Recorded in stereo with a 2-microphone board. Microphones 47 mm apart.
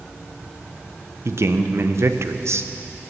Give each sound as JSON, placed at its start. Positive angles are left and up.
{"t": 1.2, "sound": "a man speaking", "side_deg": -60, "distance_m": 0.7}